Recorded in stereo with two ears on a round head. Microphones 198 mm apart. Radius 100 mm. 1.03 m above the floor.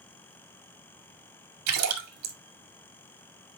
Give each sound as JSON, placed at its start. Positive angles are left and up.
{"t": 1.7, "sound": "a splash", "side_deg": -80, "distance_m": 2.0}